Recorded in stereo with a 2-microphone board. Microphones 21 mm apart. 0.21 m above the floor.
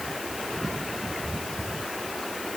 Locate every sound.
Only background noise.